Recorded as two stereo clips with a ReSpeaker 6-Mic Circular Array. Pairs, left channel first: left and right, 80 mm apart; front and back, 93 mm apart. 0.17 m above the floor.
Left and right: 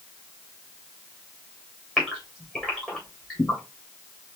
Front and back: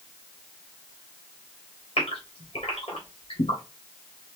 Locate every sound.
2.0 s a gasp: straight ahead, 2.5 m